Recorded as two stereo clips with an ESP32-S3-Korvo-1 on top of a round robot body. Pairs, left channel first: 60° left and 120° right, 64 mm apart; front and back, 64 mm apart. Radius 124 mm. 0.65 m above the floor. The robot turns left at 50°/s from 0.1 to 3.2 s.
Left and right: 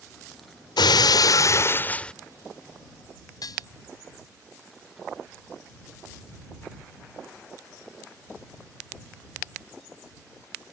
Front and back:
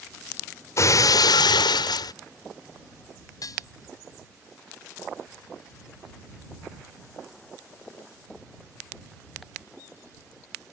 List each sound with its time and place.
0.8 s breaking glass: 50° left; by 2.1 s 15° right
3.4 s dishes clattering: 35° left